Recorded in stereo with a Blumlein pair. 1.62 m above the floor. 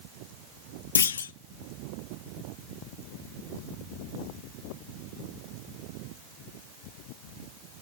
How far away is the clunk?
About 0.7 m.